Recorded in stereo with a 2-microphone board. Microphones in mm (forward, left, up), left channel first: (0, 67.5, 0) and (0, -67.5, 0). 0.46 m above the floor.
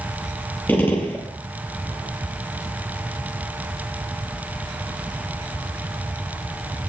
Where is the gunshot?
15° left (ahead or behind), 4.5 m.